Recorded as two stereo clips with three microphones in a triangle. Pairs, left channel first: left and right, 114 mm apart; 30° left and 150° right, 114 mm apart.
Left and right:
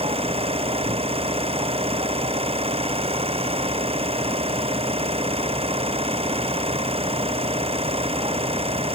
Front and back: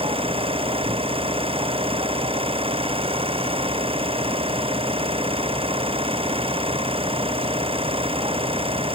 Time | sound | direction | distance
0.0 | an engine running | 120° right | ?